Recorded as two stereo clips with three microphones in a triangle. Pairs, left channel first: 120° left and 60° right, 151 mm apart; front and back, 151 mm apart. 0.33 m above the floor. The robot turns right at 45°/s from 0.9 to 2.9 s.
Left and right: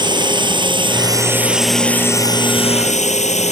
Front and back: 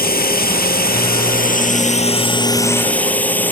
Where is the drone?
Straight ahead; by 3.5 s 80° left.